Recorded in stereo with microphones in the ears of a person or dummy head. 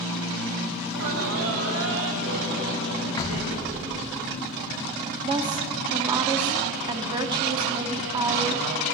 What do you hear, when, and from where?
0.8 s laughter: 65° right (ahead or behind), 1.6 m
3.2 s knocking: 25° left (ahead or behind), 1.3 m
5.2 s a woman speaking: 20° right (ahead or behind), 0.7 m